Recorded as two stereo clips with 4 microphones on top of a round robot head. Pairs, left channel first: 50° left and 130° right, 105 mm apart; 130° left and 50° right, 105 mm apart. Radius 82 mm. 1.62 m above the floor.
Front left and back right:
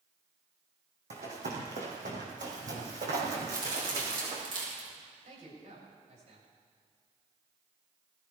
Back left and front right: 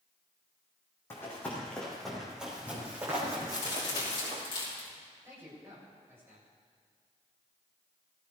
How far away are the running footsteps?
About 4 m.